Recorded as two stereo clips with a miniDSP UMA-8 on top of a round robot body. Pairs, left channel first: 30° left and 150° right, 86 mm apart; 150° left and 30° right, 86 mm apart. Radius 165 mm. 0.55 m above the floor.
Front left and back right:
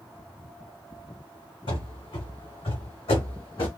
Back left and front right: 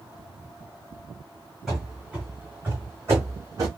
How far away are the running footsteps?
About 1.8 m.